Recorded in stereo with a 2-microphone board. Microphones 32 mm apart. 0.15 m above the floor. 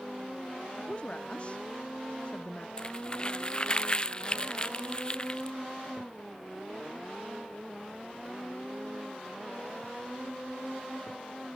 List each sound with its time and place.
0.8 s a woman speaking: 35° left (ahead or behind)
2.8 s crumpling: 30° left (ahead or behind)